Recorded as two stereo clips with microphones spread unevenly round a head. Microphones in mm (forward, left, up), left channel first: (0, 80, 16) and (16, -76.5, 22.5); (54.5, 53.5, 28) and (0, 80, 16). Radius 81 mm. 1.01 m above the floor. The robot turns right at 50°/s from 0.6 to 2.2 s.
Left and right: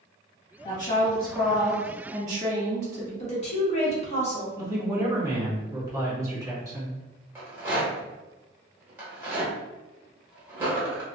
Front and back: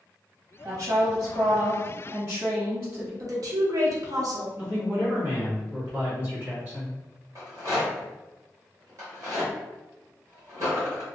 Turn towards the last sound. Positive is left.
turn(degrees=-150)